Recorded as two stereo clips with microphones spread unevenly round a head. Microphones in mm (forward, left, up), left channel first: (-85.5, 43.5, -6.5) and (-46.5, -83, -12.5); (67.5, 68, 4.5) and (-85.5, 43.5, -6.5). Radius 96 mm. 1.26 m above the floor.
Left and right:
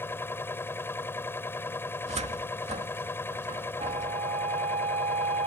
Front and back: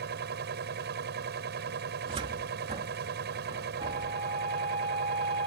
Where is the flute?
110° right.